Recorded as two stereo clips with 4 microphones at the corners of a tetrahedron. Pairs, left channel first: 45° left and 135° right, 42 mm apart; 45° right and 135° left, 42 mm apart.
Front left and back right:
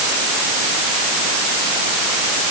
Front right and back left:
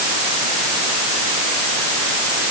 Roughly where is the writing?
I don't hear writing.